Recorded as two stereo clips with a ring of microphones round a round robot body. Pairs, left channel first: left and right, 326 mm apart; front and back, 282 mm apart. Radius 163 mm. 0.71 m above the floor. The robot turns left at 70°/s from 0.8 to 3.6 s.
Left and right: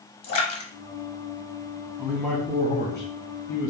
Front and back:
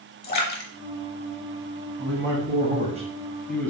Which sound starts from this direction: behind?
A man speaking, at 2.0 s.